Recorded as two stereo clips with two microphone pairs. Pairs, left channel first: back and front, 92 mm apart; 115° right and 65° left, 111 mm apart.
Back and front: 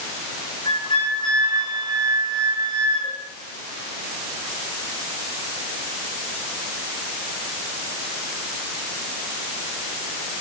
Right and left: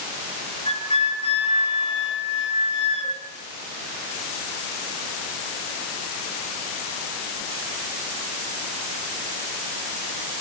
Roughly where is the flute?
Behind right.